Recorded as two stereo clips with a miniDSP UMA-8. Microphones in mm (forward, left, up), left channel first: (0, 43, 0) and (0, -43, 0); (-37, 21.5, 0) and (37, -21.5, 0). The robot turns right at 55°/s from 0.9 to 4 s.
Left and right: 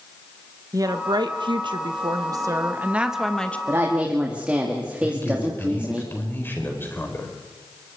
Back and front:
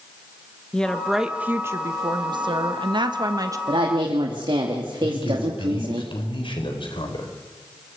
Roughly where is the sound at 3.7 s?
Ahead right.